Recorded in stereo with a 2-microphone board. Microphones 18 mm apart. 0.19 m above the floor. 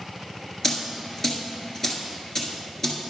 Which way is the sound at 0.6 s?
20° left (ahead or behind).